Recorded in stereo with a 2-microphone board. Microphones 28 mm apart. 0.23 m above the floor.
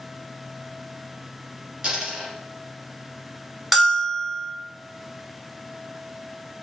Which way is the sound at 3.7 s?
5° right (ahead or behind).